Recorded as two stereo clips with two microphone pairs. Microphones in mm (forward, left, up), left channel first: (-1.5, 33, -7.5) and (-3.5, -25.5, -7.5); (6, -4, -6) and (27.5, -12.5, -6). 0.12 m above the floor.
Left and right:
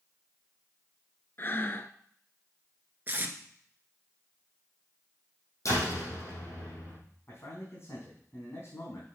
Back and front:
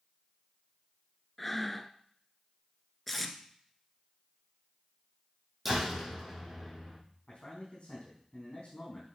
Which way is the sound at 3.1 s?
115° right.